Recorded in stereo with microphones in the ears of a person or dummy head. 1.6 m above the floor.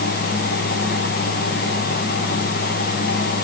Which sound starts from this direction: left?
A fan, at 0.0 s.